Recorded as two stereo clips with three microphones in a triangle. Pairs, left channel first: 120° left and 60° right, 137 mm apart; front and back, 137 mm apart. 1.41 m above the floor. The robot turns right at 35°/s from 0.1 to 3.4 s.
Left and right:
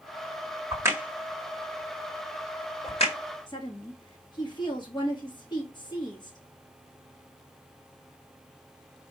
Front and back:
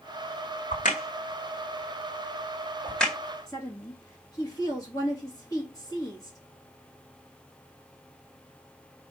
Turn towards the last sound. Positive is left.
turn(degrees=65)